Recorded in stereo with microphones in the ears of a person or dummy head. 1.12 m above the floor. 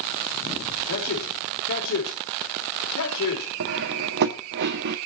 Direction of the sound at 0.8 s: 80° left.